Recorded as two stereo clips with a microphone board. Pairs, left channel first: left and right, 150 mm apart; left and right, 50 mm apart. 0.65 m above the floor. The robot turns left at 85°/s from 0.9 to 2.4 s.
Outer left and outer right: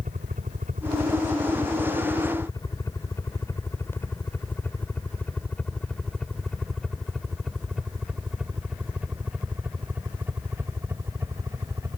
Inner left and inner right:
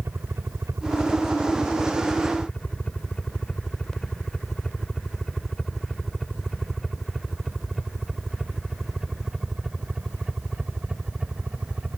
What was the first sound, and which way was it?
A helicopter, 60° right (ahead or behind).